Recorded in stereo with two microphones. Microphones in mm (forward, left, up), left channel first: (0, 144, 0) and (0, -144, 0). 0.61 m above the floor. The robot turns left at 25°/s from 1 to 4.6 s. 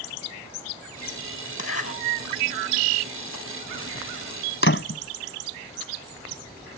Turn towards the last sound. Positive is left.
turn(degrees=45)  # may be behind; listen again after turning